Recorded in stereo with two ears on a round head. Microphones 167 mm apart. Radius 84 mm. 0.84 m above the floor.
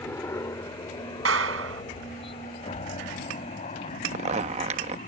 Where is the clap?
75° right (ahead or behind).